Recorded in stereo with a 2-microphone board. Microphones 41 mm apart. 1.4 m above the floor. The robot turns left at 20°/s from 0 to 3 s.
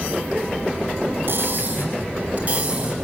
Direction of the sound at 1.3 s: 120° right.